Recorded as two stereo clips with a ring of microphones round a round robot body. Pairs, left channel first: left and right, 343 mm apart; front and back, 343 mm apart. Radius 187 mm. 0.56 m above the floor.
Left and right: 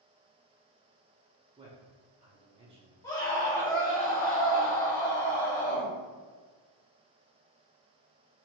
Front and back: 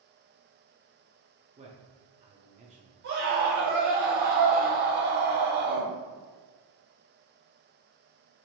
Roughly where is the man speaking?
Behind right.